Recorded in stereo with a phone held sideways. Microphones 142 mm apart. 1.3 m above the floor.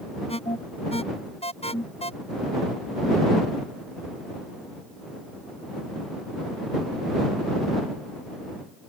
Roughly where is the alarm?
Left.